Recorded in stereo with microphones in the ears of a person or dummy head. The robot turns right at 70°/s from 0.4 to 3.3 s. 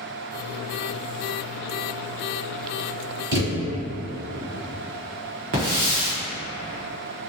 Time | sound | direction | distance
3.3 | a thud | 25° right (ahead or behind) | 1.5 m
5.5 | a hiss | 35° right (ahead or behind) | 0.9 m